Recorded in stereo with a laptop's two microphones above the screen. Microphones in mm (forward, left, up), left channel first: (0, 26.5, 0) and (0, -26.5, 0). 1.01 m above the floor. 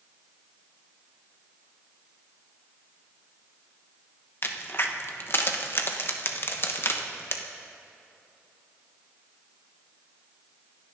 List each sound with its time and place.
4.4 s a crack: 45° left (ahead or behind), 1.1 m